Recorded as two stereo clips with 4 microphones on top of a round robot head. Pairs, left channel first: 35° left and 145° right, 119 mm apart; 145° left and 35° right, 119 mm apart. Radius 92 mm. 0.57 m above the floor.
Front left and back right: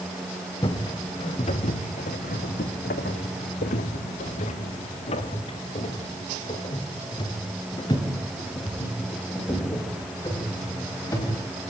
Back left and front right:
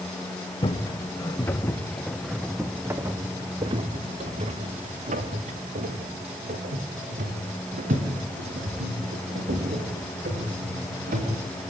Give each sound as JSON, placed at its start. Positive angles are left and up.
{"t": 0.6, "sound": "footsteps", "azimuth_deg": 90, "distance_m": 2.0}